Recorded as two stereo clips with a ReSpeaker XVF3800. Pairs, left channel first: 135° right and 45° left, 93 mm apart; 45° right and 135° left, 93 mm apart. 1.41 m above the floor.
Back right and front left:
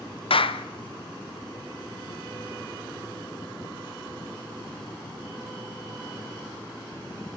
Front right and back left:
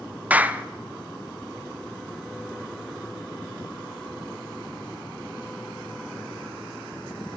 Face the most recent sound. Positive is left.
turn(degrees=-150)